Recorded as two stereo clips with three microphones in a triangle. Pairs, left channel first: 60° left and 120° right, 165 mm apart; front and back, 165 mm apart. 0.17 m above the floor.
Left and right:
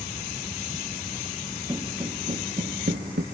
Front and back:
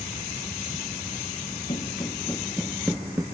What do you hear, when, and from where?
1.7 s footsteps: 50° right, 2 m; by 3.2 s 105° right, 2 m